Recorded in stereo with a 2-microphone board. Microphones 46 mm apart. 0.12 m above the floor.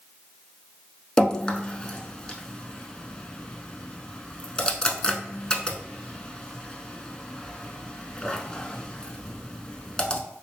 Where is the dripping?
20° left (ahead or behind), 0.6 m.